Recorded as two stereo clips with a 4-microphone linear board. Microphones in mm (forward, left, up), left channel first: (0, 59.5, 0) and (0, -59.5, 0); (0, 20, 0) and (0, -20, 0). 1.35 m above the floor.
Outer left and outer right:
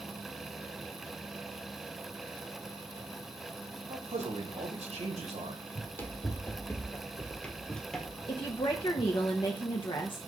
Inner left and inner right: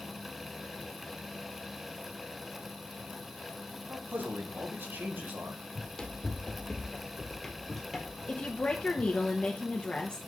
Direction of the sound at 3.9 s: 70° right (ahead or behind).